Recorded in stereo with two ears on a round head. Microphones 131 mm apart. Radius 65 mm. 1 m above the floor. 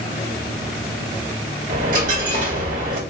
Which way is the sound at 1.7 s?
60° right (ahead or behind).